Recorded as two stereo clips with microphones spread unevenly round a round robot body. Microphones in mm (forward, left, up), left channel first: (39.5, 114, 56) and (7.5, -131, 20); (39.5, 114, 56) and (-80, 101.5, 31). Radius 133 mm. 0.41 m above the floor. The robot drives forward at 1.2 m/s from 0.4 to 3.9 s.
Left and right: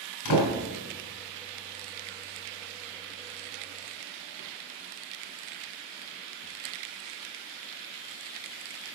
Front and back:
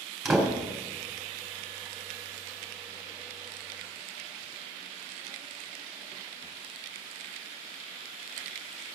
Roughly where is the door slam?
Left.